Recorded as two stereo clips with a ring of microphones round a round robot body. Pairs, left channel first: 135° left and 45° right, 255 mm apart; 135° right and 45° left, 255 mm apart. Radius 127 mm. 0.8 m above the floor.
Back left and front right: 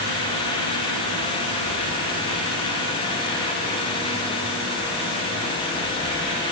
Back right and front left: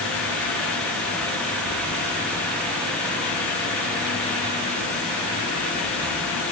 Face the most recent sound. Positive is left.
No sound to turn to.